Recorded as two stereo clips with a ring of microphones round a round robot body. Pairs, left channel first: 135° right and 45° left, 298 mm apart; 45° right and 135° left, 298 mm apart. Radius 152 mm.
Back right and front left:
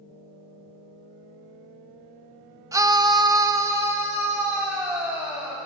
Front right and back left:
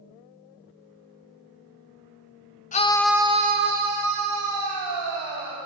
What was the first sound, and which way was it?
A scream, 20° right.